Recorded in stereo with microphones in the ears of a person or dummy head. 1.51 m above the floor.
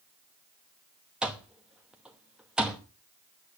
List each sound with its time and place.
1.2 s an alarm clock: 5° right (ahead or behind), 1.1 m